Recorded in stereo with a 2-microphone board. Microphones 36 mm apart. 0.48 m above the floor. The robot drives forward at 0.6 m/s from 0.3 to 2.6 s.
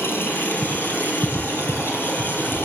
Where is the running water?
80° left, 5.5 m; by 2.6 s 85° left, 5.5 m.